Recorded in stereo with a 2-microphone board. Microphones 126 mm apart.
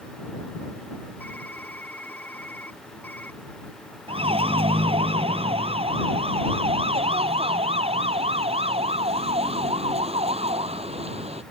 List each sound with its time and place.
1.2 s typing on a keyboard: 15° left (ahead or behind)
4.1 s a siren: 50° right (ahead or behind); by 11.4 s 55° right (ahead or behind)